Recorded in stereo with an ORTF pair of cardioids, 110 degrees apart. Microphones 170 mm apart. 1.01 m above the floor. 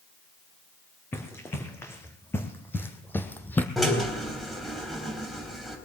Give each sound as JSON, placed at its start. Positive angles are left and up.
{"t": 1.1, "sound": "running footsteps", "azimuth_deg": 15, "distance_m": 3.5}
{"t": 3.8, "sound": "a drill", "azimuth_deg": 0, "distance_m": 3.5}